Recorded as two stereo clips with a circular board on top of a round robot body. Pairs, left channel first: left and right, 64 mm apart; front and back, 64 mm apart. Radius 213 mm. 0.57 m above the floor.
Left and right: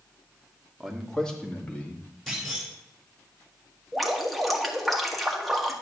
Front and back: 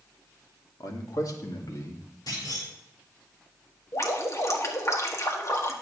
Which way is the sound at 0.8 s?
Straight ahead.